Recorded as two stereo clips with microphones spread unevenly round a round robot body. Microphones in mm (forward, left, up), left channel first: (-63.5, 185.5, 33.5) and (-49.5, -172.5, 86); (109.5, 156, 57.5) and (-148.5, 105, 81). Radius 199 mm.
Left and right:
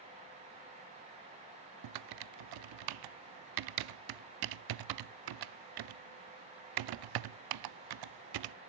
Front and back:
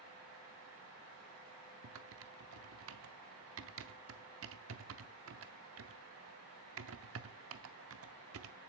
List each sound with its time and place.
1.8 s typing on a keyboard: 120° right, 0.6 m